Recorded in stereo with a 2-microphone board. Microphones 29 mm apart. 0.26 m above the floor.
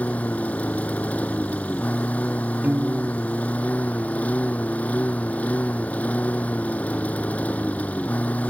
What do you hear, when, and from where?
0.0 s a lawn mower: 70° left (ahead or behind)
2.6 s a piano: 85° right